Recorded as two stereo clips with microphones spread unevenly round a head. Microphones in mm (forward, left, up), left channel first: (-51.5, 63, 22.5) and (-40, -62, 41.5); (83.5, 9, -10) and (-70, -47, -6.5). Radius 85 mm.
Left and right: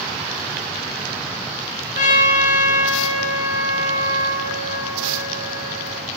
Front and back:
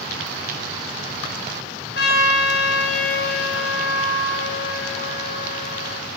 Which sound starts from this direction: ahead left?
A trumpet, at 1.9 s.